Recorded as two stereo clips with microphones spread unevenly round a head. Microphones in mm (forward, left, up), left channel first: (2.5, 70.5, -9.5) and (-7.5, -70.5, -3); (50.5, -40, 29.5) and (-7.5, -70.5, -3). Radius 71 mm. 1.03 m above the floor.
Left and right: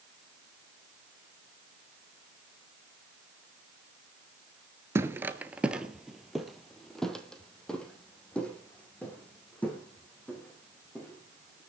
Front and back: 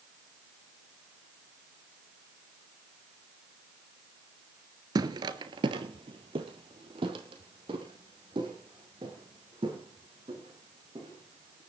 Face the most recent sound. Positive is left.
turn(degrees=165)